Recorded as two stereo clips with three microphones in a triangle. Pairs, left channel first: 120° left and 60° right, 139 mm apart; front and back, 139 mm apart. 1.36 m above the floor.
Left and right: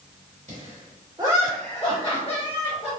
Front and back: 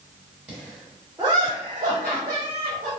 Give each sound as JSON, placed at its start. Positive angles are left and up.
{"t": 0.5, "sound": "laughter", "azimuth_deg": -90, "distance_m": 1.0}